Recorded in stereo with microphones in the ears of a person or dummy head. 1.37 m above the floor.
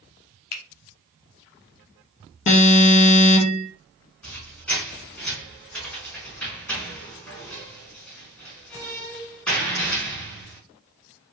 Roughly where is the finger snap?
Left.